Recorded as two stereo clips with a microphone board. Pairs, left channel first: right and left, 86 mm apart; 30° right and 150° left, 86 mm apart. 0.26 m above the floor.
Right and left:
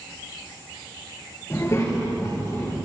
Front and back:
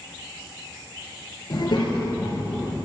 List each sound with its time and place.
1.5 s a child speaking: 40° right, 3 m